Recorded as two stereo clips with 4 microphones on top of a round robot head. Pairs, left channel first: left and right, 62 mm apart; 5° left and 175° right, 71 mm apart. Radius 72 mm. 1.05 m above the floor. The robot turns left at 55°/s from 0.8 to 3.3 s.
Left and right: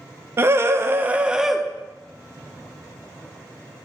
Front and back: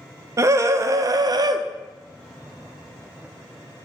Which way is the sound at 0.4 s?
135° right.